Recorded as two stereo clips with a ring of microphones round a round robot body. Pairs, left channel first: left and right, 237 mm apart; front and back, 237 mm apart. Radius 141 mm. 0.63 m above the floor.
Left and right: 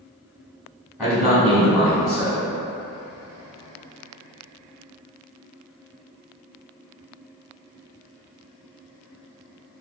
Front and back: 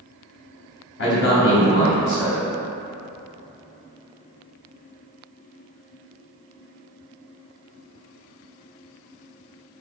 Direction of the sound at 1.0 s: Straight ahead.